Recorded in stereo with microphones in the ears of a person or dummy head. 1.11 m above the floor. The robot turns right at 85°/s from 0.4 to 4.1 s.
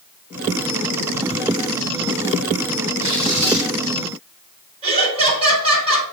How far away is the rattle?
I don't hear a rattle.